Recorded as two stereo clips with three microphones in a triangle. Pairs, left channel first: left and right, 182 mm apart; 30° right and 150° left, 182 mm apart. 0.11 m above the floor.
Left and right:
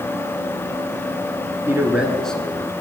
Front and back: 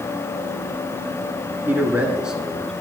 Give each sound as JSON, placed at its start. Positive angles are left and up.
{"t": 1.7, "sound": "a man speaking", "azimuth_deg": -145, "distance_m": 1.2}